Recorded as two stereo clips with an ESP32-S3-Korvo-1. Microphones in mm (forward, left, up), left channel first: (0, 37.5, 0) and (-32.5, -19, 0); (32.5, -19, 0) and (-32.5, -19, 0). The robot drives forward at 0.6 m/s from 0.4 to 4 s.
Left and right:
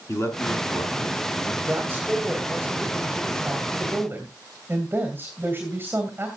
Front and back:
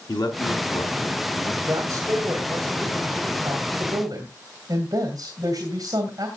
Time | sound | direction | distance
0.1 | a man speaking | 5° left | 4 m
1.6 | a woman speaking | 175° right | 1.7 m